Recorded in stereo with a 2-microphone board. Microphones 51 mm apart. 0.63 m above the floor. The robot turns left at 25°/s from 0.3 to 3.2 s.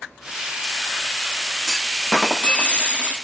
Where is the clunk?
170° left, 0.8 m; by 3.1 s 135° left, 0.8 m.